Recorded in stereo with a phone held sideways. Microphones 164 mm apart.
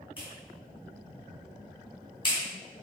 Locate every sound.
0.2 s a clap: 30° left (ahead or behind), 4 m